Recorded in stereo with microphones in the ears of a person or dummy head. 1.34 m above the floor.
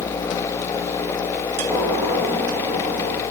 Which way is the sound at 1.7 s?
10° left (ahead or behind).